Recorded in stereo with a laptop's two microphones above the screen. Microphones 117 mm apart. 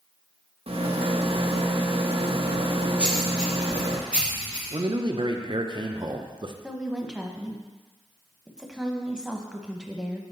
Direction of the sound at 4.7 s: 45° right (ahead or behind).